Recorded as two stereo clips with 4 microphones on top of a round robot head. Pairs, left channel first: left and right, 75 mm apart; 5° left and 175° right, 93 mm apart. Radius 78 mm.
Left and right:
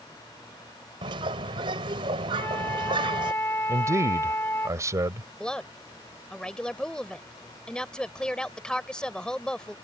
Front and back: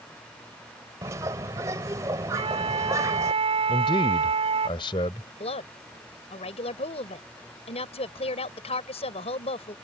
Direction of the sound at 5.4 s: 10° left.